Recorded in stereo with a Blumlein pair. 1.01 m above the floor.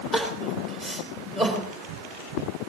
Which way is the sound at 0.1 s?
20° right.